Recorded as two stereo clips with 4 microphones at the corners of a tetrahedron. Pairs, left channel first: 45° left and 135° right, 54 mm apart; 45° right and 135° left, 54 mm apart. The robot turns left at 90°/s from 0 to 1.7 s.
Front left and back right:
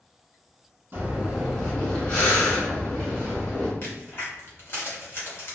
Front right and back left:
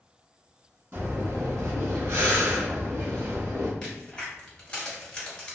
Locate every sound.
0.9 s breathing: straight behind, 1.0 m; by 3.7 s 110° left, 1.0 m
3.8 s a crack: 25° left, 1.0 m